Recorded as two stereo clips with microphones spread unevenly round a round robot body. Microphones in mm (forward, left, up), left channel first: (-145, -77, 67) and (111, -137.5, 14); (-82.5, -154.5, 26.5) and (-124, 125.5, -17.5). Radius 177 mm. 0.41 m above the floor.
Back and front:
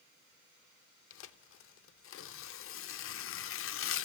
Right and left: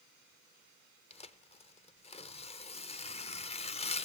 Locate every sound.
1.1 s tearing paper: 155° right, 0.5 m